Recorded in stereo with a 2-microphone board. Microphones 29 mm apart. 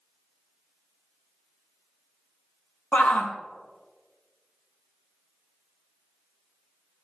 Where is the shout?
75° left (ahead or behind), 1.0 m.